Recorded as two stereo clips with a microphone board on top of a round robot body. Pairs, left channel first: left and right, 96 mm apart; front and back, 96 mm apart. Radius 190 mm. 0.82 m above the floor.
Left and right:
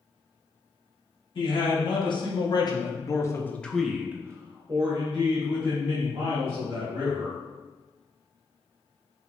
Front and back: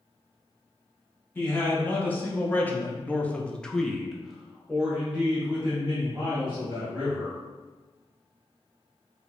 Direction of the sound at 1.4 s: 70° left.